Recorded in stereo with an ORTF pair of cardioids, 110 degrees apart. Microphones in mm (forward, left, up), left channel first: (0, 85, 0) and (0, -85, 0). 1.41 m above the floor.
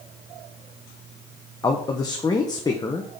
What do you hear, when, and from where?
1.6 s a man speaking: 20° left, 1.0 m